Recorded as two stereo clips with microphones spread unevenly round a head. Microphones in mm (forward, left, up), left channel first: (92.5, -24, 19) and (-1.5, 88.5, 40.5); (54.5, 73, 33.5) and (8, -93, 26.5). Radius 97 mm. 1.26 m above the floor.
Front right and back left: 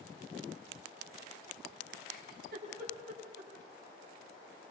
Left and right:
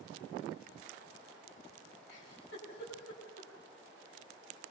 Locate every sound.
2.1 s a giggle: 110° left, 9.5 m